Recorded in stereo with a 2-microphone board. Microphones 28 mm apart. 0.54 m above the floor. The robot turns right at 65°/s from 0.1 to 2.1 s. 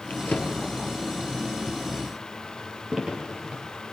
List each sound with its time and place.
0.1 s a drawer: 70° left (ahead or behind), 5.5 m; by 3.6 s 20° right (ahead or behind), 5.5 m